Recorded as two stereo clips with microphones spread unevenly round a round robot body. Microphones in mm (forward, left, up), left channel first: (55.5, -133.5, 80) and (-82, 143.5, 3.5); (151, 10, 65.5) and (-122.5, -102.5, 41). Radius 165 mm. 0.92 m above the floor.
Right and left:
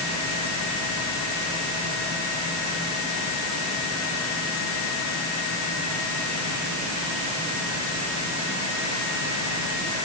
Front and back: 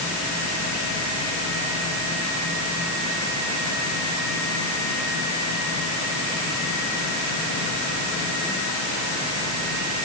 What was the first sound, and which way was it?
Only background noise.